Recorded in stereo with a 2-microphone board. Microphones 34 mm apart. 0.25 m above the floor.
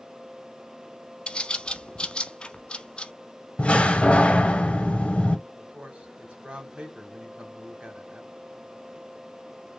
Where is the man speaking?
40° right (ahead or behind), 1.5 m.